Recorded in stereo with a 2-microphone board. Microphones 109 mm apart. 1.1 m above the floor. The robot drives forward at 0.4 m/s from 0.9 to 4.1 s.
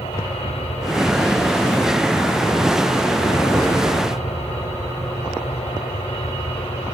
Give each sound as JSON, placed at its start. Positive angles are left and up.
{"t": 0.0, "sound": "an aircraft", "side_deg": 75}